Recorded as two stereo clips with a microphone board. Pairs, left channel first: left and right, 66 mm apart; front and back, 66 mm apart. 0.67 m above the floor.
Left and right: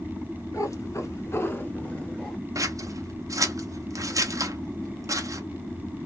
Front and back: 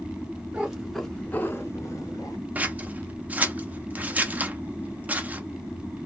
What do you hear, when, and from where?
0.5 s a cat meowing: 110° left, 1.0 m; by 2.4 s 5° left, 1.2 m
2.5 s scissors: 115° right, 0.6 m